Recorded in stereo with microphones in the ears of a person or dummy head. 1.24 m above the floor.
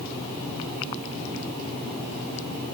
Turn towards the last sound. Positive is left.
No sound to turn to.